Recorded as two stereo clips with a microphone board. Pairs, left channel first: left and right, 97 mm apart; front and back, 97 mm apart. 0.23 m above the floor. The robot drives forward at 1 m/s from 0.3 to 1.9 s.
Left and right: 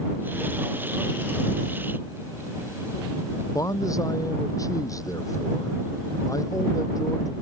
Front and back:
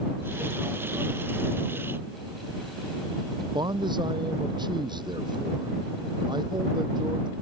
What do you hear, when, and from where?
3.5 s a man speaking: 140° left